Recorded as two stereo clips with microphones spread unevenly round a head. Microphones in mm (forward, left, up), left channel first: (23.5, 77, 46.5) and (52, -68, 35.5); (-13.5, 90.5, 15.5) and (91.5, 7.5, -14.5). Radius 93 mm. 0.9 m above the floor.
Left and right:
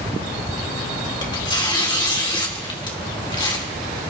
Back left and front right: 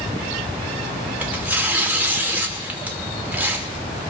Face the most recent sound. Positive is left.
turn(degrees=40)